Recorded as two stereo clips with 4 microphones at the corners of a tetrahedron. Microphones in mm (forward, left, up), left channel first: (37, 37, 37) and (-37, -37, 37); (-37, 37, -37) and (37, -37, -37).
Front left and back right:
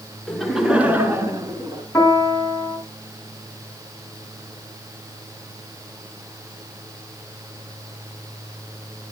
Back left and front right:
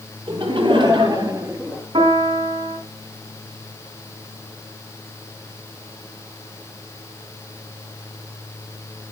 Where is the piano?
25° right, 5 m.